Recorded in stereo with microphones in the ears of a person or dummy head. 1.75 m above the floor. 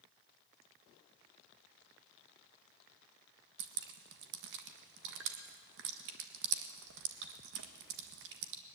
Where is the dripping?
65° right (ahead or behind), 1.7 m.